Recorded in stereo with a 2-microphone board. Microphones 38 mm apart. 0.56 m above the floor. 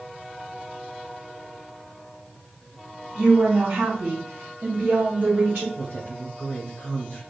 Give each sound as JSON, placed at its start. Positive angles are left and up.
{"t": 3.1, "sound": "a woman speaking", "side_deg": -25, "distance_m": 3.0}
{"t": 5.8, "sound": "a woman speaking", "side_deg": 40, "distance_m": 2.0}